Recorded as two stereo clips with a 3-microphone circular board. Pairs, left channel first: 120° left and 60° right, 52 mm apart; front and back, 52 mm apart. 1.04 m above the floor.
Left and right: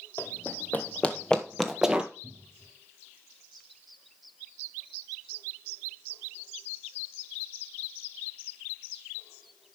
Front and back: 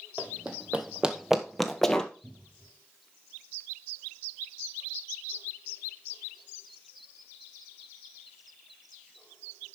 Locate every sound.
0.2 s running footsteps: 130° left, 1.5 m; by 2.1 s 35° right, 1.0 m
2.2 s a cupboard door: 75° right, 2 m